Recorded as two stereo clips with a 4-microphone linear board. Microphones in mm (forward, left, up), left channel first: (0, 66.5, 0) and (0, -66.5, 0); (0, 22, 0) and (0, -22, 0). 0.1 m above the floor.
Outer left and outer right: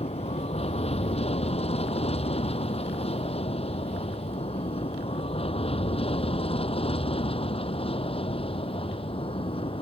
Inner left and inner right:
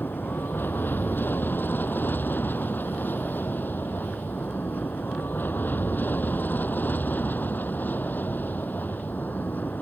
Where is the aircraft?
50° left (ahead or behind); by 9.8 s 45° left (ahead or behind).